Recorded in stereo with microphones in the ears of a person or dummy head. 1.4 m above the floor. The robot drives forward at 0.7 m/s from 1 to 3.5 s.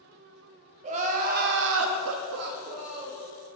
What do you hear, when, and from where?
0.8 s crying: 35° right (ahead or behind), 0.9 m; by 3.2 s 30° right (ahead or behind), 1.0 m